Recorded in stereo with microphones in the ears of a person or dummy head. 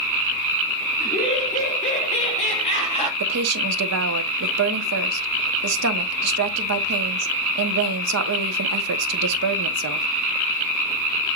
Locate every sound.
1.0 s laughter: 40° left (ahead or behind), 2.5 m; by 3.1 s 35° left (ahead or behind), 1.4 m
3.2 s a woman speaking: 85° right, 1.0 m